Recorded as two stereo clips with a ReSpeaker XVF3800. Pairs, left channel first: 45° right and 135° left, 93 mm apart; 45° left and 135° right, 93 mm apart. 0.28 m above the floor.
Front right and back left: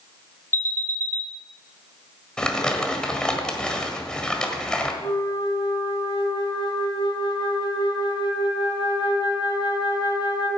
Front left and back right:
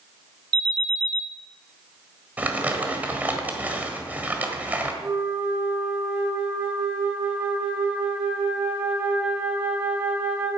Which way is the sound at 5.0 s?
65° right.